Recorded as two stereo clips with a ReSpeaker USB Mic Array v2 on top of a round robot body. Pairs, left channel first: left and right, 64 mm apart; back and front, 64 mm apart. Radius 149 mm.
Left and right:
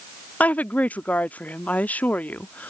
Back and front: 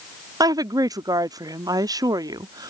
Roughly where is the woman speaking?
Ahead.